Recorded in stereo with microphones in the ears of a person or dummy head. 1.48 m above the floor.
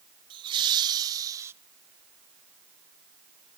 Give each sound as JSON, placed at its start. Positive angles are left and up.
{"t": 0.3, "sound": "laughter", "side_deg": -30, "distance_m": 1.6}